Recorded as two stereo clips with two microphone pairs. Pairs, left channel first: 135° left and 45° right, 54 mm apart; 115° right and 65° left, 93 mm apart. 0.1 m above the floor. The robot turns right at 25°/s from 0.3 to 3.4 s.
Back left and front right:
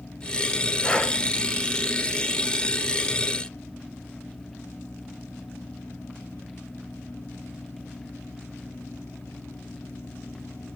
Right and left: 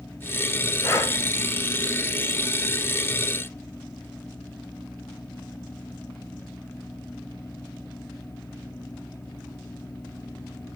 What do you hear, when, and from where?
0.8 s breathing: 165° right, 0.7 m; by 1.1 s 160° right, 0.7 m